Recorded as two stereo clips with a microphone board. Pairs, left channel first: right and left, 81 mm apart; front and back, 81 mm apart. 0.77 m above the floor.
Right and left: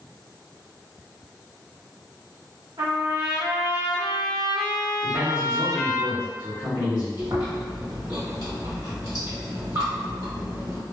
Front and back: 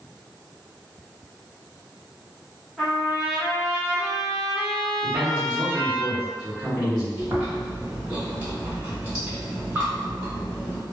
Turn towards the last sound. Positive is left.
turn(degrees=110)